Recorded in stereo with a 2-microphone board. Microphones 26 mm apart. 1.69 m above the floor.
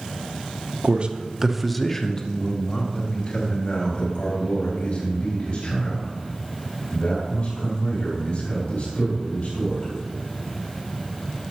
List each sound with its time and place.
0.8 s a man speaking: 50° right (ahead or behind), 0.7 m; by 9.9 s 60° left (ahead or behind), 6.5 m